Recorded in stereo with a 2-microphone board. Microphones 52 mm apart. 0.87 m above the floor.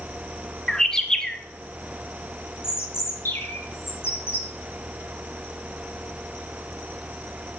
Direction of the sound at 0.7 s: 10° left (ahead or behind).